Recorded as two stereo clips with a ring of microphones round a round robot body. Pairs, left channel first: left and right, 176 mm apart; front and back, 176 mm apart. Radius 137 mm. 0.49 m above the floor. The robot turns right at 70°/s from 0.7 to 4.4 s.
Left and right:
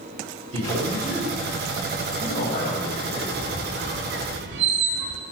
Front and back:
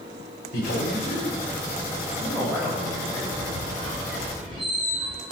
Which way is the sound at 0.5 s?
40° right.